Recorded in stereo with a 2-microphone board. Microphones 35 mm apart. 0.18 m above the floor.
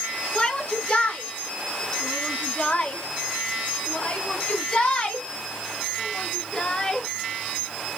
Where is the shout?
25° left (ahead or behind), 2.5 m; by 7.1 s 20° left (ahead or behind), 2.5 m.